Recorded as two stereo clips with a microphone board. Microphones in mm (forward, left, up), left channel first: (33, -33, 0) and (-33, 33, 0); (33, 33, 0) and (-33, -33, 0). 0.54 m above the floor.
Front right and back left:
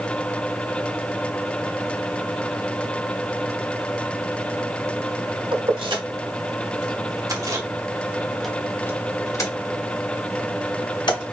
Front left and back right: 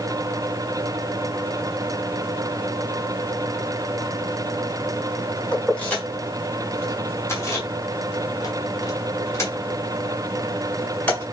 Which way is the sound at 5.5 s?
120° left.